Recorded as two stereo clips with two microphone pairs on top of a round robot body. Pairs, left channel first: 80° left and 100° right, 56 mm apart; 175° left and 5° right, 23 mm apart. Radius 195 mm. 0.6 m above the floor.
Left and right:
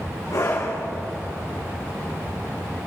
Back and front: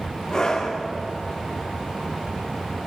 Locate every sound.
0.3 s a scream: 105° left, 4 m